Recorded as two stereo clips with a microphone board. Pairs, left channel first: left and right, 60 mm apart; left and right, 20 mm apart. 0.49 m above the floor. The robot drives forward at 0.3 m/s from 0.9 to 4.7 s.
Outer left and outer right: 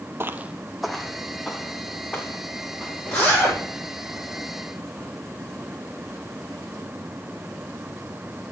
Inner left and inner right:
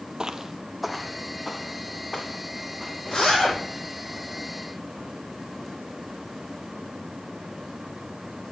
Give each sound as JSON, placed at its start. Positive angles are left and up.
{"t": 0.2, "sound": "footsteps", "side_deg": -40, "distance_m": 0.6}
{"t": 3.1, "sound": "a zipper", "side_deg": 20, "distance_m": 8.5}